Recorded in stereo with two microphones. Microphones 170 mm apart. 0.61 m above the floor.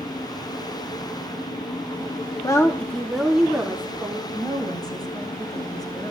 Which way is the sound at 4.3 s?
25° left (ahead or behind).